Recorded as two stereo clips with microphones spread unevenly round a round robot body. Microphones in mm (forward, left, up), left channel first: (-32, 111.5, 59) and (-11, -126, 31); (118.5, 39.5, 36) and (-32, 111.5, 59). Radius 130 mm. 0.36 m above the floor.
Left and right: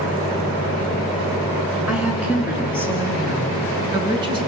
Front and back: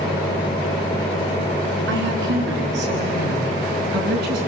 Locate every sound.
1.9 s a woman speaking: 170° right, 4.5 m; by 4.4 s 155° right, 4 m